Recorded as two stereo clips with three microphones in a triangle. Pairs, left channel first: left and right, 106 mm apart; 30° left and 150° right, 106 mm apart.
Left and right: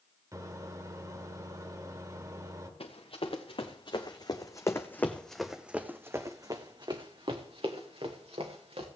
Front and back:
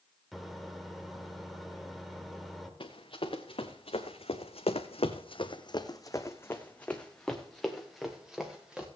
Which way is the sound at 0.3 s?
60° right.